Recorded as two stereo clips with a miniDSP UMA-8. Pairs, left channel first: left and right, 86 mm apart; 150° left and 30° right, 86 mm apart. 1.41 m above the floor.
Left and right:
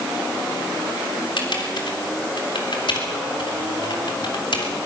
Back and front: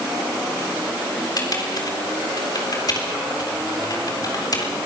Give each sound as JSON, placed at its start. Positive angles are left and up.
{"t": 1.4, "sound": "typing on a keyboard", "azimuth_deg": 110, "distance_m": 3.5}